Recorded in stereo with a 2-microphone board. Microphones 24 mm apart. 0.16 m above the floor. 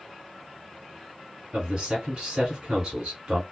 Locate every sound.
1.5 s a man speaking: 35° right (ahead or behind), 1.4 m